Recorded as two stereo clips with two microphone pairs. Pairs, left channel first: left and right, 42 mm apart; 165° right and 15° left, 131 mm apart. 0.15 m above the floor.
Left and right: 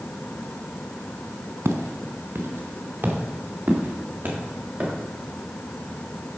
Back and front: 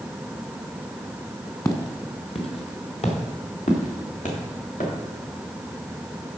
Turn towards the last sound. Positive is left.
turn(degrees=-150)